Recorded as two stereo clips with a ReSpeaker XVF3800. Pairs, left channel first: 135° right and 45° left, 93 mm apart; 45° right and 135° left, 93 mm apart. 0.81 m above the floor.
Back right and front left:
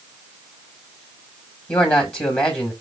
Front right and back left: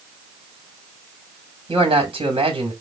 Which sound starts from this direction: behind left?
A man speaking, at 1.7 s.